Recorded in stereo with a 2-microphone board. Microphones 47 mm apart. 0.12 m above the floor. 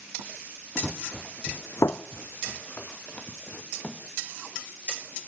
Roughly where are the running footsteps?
Centre.